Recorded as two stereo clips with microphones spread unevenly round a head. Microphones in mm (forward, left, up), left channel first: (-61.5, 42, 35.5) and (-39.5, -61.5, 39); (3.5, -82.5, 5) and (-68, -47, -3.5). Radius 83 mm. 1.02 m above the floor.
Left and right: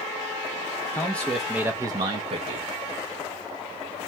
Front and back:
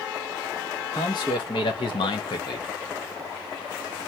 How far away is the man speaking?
About 0.7 m.